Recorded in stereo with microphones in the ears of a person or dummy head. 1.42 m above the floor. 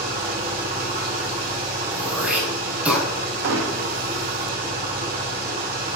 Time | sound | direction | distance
0.0 | an engine running | 55° right (ahead or behind) | 3 m
1.9 | throat clearing | 10° right (ahead or behind) | 3.5 m
3.4 | hammering | 75° right (ahead or behind) | 1.2 m